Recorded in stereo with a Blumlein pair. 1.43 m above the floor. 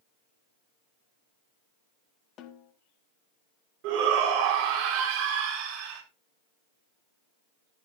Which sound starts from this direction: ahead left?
A snare drum, at 2.4 s.